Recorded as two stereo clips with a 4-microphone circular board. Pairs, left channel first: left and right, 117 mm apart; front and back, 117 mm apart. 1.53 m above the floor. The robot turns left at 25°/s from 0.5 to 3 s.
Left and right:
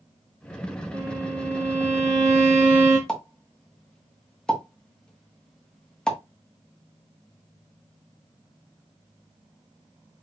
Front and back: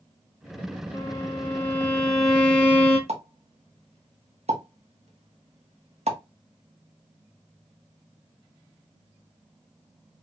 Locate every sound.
0.9 s a violin: 60° right, 1.8 m; by 3.0 s 110° right, 1.8 m
3.1 s a pop: 175° left, 1.4 m